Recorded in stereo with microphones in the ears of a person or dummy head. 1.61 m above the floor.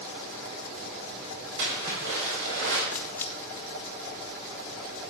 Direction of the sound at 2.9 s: 10° left (ahead or behind).